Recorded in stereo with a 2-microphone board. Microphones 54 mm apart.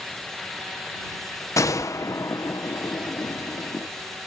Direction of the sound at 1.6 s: 70° left (ahead or behind).